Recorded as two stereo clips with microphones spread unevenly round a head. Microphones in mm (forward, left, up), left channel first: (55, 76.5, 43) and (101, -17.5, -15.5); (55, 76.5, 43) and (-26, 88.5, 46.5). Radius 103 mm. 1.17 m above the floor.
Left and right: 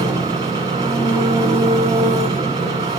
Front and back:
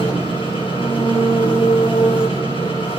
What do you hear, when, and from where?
0.0 s an engine running: 10° right, 8 m